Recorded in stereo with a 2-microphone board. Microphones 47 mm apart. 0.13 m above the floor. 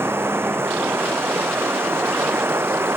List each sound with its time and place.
0.0 s running water: 55° right (ahead or behind)